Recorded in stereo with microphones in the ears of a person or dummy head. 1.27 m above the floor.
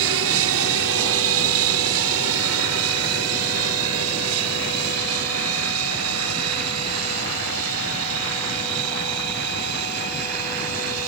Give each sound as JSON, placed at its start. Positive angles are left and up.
{"t": 0.0, "sound": "an aircraft", "side_deg": -70}